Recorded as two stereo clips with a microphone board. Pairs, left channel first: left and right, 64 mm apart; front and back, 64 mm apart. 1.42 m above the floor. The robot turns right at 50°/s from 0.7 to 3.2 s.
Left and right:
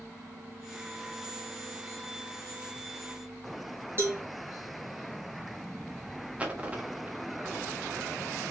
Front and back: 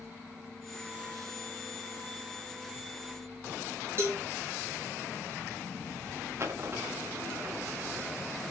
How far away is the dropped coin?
About 1.1 m.